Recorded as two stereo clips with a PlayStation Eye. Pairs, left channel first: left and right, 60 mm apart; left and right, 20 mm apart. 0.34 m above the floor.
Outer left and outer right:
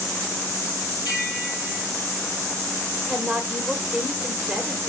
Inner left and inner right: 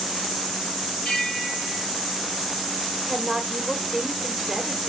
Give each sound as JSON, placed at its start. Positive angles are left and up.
{"t": 1.1, "sound": "a bell", "side_deg": 70, "distance_m": 5.0}
{"t": 3.1, "sound": "a woman speaking", "side_deg": -5, "distance_m": 1.5}